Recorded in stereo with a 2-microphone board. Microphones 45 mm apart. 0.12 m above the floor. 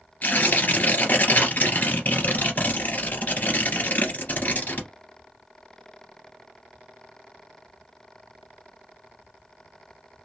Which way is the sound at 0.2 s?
45° left (ahead or behind).